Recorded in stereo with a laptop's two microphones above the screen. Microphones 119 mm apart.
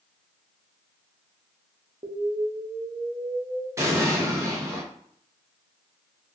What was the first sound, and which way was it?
An explosion, 50° right (ahead or behind).